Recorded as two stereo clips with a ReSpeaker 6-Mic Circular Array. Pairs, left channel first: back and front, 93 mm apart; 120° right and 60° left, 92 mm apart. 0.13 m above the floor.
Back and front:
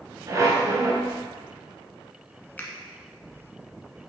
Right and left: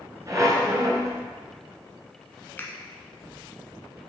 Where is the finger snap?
140° right, 1.1 m.